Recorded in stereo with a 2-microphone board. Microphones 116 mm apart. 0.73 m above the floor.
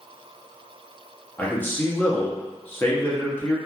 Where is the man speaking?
15° left (ahead or behind), 0.7 m.